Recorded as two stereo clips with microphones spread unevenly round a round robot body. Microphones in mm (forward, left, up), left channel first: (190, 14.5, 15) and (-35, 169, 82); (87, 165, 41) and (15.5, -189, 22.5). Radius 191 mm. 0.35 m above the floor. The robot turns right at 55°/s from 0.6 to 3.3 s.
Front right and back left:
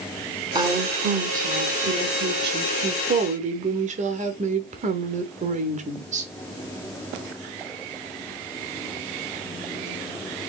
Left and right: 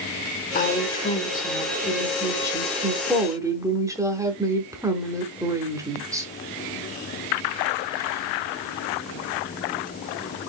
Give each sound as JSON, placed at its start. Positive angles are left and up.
{"t": 0.6, "sound": "a woman speaking", "azimuth_deg": 55, "distance_m": 0.9}